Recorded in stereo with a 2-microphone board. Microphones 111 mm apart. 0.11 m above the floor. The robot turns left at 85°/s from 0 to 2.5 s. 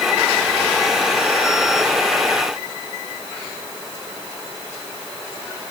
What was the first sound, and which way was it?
Only background noise.